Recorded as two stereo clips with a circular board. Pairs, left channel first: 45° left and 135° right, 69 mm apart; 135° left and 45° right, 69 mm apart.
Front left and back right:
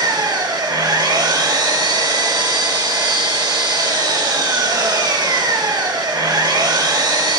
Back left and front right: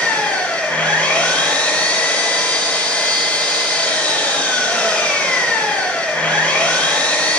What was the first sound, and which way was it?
An engine running, 155° right.